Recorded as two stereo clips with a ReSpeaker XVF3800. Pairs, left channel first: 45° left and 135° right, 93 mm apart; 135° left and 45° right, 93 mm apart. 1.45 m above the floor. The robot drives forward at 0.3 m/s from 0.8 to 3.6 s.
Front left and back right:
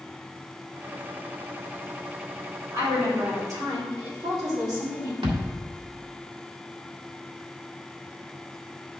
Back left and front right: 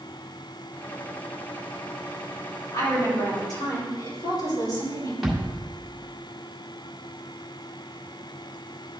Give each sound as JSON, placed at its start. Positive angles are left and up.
{"t": 2.7, "sound": "a woman speaking", "azimuth_deg": 180, "distance_m": 3.5}
{"t": 5.2, "sound": "a thud", "azimuth_deg": -130, "distance_m": 2.0}